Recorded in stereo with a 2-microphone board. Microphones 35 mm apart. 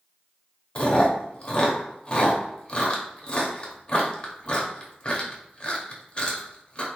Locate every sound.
0.8 s chewing: 30° left (ahead or behind), 0.7 m